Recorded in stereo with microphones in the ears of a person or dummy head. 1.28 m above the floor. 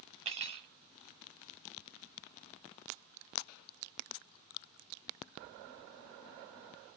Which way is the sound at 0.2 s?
35° right (ahead or behind).